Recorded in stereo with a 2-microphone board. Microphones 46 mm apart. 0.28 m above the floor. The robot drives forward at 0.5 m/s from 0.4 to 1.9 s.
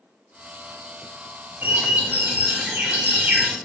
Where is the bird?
45° right (ahead or behind), 0.8 m; by 3.6 s 40° right (ahead or behind), 0.9 m.